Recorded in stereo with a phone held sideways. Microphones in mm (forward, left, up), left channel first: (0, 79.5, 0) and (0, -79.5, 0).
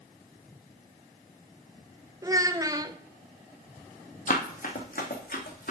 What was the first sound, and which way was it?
A child speaking, 20° right (ahead or behind).